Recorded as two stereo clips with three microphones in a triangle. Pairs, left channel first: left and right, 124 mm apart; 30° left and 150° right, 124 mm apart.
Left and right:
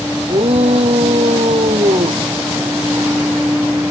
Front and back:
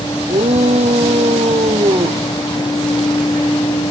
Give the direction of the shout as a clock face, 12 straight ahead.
4 o'clock.